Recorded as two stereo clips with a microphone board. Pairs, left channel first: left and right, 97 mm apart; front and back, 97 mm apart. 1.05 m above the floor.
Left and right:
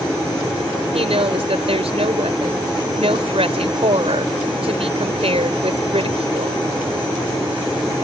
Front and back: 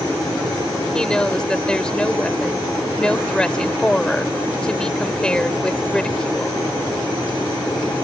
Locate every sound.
0.9 s a woman speaking: 80° right